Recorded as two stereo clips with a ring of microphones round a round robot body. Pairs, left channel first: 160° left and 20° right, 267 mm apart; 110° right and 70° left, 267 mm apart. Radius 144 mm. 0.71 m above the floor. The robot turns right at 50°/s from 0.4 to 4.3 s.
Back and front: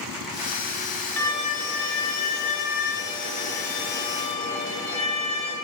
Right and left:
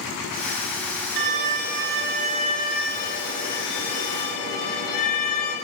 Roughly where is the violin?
Left.